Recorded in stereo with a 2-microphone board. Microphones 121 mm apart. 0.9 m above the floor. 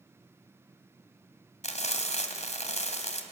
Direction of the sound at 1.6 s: 70° left (ahead or behind).